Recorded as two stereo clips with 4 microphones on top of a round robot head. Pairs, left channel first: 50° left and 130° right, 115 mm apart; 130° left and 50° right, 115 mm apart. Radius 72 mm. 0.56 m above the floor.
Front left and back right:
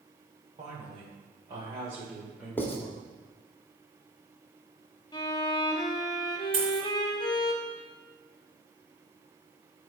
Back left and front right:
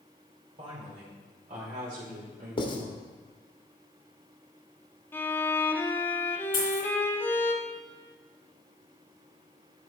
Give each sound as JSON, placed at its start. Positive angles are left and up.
{"t": 0.6, "sound": "a woman speaking", "azimuth_deg": -90, "distance_m": 2.5}
{"t": 2.6, "sound": "writing", "azimuth_deg": 120, "distance_m": 1.5}
{"t": 5.1, "sound": "a violin", "azimuth_deg": 70, "distance_m": 1.0}
{"t": 6.5, "sound": "a dropped coin", "azimuth_deg": 180, "distance_m": 3.0}